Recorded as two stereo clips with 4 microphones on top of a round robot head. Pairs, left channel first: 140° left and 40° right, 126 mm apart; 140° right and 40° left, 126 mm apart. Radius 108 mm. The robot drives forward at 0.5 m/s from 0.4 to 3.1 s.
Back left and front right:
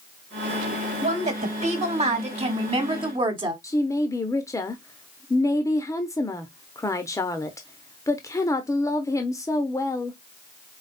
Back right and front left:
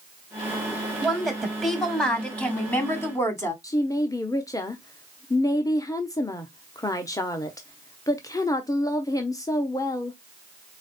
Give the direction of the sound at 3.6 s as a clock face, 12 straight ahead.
6 o'clock.